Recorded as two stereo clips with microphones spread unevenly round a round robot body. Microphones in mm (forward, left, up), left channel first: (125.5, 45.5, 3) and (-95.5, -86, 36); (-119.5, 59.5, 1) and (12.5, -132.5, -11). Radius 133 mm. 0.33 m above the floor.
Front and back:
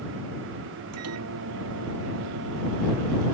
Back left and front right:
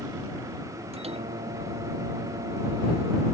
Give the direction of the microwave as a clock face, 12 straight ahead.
4 o'clock.